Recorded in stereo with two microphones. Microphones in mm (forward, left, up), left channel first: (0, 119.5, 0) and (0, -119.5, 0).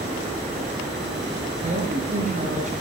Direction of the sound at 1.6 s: 30° right (ahead or behind).